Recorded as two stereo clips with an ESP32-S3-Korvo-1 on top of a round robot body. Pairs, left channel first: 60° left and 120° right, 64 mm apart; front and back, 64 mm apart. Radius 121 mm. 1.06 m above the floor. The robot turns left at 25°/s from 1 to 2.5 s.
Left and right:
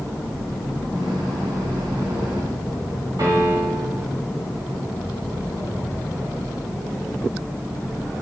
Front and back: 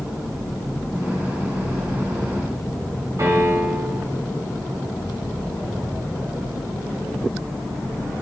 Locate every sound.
3.2 s a piano: 145° right, 8 m